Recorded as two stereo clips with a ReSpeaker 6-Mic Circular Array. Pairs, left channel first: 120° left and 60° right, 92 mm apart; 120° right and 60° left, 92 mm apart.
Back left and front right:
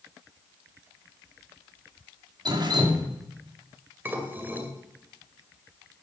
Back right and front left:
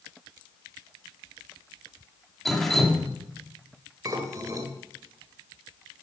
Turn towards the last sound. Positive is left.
turn(degrees=10)